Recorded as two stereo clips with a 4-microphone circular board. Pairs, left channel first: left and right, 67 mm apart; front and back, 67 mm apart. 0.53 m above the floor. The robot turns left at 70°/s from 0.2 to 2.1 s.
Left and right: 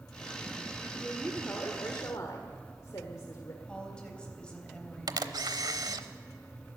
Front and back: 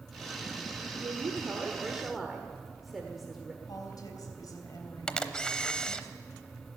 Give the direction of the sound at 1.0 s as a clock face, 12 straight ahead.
6 o'clock.